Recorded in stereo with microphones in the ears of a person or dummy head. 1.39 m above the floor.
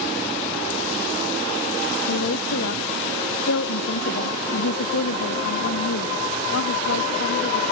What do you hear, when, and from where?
2.1 s a woman speaking: 70° left (ahead or behind)